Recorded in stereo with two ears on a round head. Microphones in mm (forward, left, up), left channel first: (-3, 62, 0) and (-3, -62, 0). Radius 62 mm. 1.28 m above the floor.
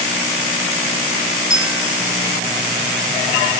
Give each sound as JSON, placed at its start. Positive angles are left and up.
{"t": 1.5, "sound": "a bell", "side_deg": -5, "distance_m": 1.0}